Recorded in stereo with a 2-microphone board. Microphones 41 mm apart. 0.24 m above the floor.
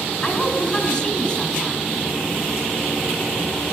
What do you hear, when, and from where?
0.2 s a woman speaking: 30° left (ahead or behind), 3 m